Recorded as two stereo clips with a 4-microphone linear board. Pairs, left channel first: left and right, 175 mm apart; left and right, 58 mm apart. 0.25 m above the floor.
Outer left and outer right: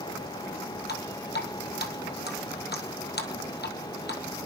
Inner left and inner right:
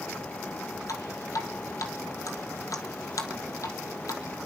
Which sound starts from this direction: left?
Dripping, at 0.9 s.